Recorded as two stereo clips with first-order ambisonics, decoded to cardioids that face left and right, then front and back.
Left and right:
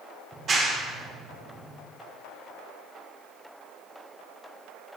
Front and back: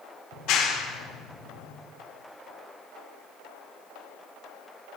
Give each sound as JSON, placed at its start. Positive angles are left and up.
{"t": 0.3, "sound": "a clap", "azimuth_deg": -30, "distance_m": 1.7}